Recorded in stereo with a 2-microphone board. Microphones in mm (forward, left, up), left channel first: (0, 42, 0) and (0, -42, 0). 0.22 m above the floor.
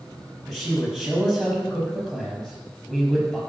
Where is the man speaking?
5° left (ahead or behind), 5.5 m.